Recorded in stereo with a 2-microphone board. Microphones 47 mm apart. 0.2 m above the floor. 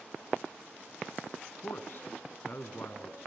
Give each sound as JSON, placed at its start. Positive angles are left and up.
{"t": 1.6, "sound": "a man speaking", "side_deg": 50, "distance_m": 1.8}